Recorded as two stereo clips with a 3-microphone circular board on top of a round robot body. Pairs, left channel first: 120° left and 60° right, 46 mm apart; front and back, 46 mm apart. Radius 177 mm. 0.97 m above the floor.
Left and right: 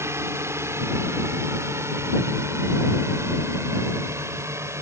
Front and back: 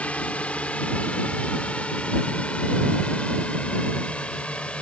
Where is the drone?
60° right; by 4.8 s 65° right.